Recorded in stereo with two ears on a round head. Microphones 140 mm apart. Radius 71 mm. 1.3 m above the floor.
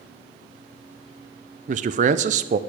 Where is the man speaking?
50° right (ahead or behind), 0.5 m.